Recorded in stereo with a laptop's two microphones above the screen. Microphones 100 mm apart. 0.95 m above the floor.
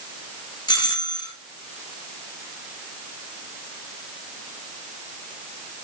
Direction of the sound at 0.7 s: 40° left (ahead or behind).